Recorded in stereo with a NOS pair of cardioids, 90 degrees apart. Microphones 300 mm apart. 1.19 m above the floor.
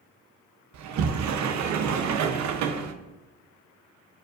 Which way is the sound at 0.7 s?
65° right.